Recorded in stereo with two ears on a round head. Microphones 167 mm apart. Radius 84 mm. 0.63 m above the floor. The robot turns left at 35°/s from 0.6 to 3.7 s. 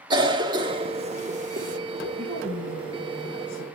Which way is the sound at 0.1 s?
25° right (ahead or behind).